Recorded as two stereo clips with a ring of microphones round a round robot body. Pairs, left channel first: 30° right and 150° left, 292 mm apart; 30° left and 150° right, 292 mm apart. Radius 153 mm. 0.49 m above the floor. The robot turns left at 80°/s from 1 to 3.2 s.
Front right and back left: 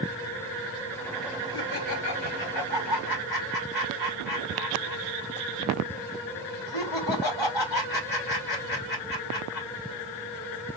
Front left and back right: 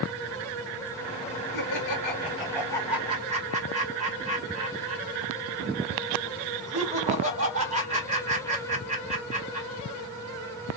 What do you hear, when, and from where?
1.5 s laughter: 50° left, 3 m; by 9.7 s 85° right, 3 m